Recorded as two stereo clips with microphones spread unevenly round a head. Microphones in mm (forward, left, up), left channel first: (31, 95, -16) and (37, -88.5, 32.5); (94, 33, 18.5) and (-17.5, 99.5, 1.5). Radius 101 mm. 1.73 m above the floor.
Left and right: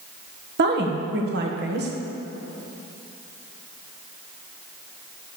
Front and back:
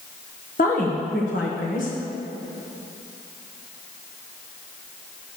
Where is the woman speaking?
70° right, 1.3 m.